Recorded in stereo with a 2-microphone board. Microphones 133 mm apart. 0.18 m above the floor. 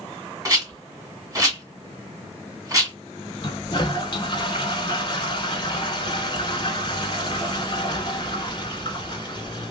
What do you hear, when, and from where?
0.5 s a rattle: 25° right (ahead or behind), 1.6 m
3.4 s a toilet flushing: 40° left (ahead or behind), 0.7 m